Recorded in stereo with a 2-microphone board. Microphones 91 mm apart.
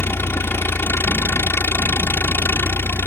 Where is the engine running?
25° left (ahead or behind).